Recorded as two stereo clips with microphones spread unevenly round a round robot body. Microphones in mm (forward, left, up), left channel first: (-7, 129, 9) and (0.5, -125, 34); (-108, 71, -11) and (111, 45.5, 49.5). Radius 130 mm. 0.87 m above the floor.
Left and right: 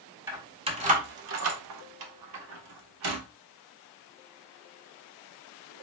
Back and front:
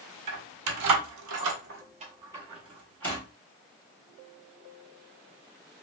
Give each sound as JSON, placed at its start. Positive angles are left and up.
{"t": 0.3, "sound": "keys jangling", "azimuth_deg": -10, "distance_m": 0.9}